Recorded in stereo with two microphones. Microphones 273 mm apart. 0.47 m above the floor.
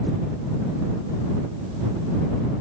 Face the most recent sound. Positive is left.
No sound to turn to.